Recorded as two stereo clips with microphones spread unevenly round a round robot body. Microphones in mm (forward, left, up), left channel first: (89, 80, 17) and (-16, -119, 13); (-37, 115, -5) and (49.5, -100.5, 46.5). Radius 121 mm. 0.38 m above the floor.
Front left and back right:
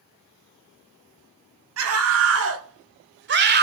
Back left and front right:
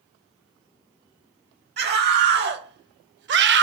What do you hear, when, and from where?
1.8 s a scream: 120° right, 2.5 m; by 3.6 s 105° right, 1.4 m